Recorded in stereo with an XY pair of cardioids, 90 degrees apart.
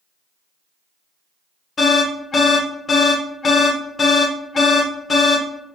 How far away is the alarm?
About 1.1 m.